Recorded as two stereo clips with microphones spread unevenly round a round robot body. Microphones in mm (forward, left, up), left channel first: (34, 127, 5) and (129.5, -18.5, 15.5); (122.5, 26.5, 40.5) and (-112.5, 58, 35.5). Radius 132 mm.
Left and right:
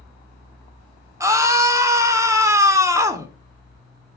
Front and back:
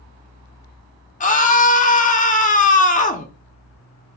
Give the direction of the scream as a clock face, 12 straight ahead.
12 o'clock.